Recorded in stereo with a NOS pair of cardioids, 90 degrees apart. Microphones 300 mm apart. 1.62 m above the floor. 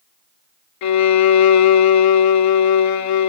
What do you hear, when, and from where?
0.8 s a violin: 65° left, 0.7 m